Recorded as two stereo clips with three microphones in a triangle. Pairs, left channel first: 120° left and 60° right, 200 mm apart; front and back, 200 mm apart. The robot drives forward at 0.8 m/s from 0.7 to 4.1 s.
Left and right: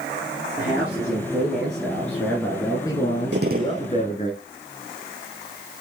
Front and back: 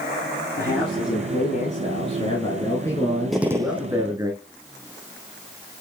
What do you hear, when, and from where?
0.6 s a man speaking: 20° left, 3 m; by 4.3 s 120° left, 2.0 m
3.3 s a gunshot: 90° right, 0.9 m; by 3.9 s 115° right, 1.0 m